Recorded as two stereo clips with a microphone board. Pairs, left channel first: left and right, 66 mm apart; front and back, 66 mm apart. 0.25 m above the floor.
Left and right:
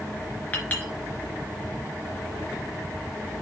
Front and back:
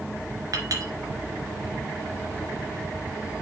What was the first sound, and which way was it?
A clink, 155° left.